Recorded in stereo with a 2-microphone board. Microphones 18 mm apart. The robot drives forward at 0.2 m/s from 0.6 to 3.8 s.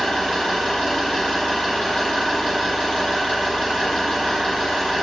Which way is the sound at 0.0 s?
65° left (ahead or behind).